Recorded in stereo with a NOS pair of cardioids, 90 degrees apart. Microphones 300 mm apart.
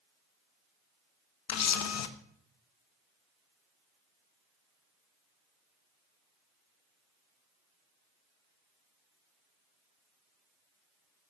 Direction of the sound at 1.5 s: 55° left.